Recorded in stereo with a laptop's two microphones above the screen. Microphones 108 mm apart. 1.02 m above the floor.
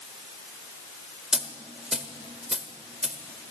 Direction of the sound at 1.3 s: 5° right (ahead or behind).